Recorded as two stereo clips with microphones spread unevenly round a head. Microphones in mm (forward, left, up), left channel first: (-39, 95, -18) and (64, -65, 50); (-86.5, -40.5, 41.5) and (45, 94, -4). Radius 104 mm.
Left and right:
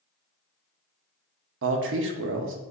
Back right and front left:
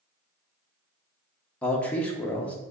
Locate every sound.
1.6 s a man speaking: 40° right, 0.6 m